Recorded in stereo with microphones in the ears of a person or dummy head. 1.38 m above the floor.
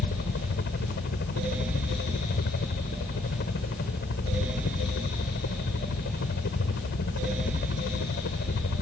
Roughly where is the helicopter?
Left.